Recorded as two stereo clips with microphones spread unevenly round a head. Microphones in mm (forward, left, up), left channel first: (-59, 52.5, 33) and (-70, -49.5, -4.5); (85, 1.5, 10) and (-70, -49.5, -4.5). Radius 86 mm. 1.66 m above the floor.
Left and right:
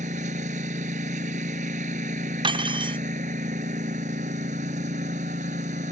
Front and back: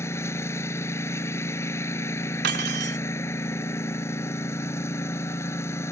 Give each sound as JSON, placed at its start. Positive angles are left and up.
{"t": 0.0, "sound": "a lawn mower", "azimuth_deg": -55}
{"t": 2.4, "sound": "cutlery clinking", "azimuth_deg": -140}